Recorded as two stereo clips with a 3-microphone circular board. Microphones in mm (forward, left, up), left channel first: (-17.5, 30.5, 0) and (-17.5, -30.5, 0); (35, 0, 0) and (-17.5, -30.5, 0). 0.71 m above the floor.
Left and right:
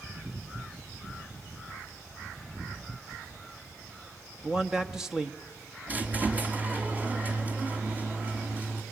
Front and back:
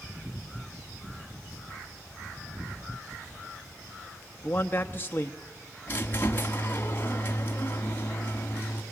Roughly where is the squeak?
Ahead right.